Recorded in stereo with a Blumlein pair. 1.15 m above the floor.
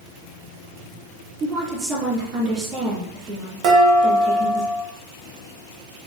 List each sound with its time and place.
1.4 s a woman speaking: 20° right, 2.5 m
3.6 s dishes clattering: 35° right, 1.2 m